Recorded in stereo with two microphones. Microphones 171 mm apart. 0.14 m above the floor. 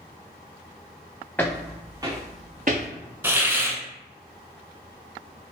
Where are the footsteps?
10° left (ahead or behind), 0.8 m; by 2.9 s 65° right (ahead or behind), 0.8 m.